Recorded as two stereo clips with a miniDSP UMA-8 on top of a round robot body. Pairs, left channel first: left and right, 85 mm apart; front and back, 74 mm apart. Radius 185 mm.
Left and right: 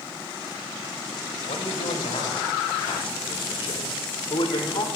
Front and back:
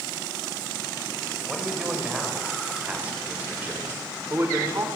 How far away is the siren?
I don't hear a siren.